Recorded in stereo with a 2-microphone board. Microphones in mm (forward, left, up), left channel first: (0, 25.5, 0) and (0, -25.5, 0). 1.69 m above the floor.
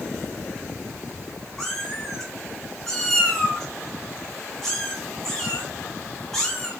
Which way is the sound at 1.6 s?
5° left (ahead or behind).